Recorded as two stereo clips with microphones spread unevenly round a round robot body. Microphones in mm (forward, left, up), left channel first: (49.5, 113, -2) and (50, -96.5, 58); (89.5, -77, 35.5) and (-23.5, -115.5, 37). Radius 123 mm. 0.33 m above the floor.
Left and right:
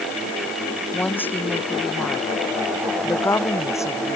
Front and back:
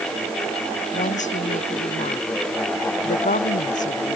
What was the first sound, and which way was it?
A woman speaking, 10° left.